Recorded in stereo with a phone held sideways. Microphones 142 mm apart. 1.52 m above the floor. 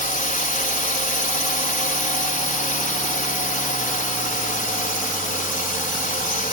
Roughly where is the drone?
Left.